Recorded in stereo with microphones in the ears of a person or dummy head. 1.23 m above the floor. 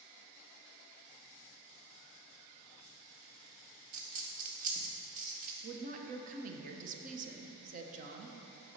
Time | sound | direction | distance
3.9 | a dropped coin | 45° right (ahead or behind) | 1.0 m
5.6 | a woman speaking | 45° right (ahead or behind) | 0.9 m